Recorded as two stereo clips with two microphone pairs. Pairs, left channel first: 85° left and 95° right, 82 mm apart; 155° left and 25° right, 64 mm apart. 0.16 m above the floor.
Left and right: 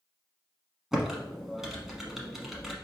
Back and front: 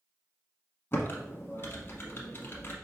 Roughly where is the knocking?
No knocking in this recording.